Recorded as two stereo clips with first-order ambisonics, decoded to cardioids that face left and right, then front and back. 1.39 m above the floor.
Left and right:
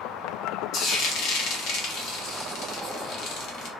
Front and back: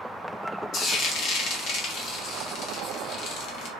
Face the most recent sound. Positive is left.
turn(degrees=45)